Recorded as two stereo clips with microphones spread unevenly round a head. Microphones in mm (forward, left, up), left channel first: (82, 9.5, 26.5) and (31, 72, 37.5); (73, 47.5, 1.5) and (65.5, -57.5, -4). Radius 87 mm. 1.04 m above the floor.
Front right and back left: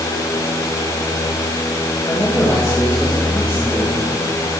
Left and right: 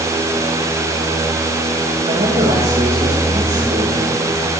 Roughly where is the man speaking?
Behind right.